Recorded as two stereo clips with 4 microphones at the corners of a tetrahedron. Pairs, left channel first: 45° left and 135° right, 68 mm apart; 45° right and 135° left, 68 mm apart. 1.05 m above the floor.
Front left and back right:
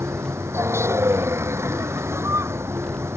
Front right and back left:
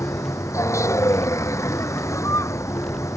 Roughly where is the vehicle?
Right.